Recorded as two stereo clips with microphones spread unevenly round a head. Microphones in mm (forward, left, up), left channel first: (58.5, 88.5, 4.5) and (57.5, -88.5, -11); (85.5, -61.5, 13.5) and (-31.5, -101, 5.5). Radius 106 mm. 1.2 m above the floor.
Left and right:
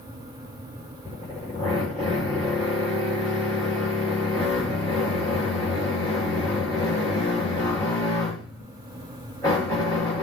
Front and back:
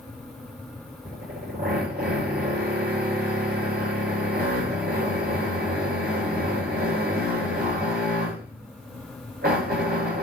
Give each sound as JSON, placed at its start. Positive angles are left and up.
{"t": 1.1, "sound": "a drill", "azimuth_deg": 160, "distance_m": 8.0}